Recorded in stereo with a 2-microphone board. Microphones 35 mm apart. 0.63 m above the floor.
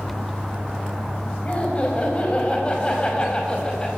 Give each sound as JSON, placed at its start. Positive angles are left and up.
{"t": 1.4, "sound": "laughter", "side_deg": 35, "distance_m": 4.5}